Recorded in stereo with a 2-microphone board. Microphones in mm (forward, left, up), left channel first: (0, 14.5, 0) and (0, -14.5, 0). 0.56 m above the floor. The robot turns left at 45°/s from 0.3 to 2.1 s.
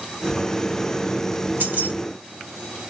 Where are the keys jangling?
75° right (ahead or behind), 1.4 m; by 1.9 s 80° right, 1.4 m.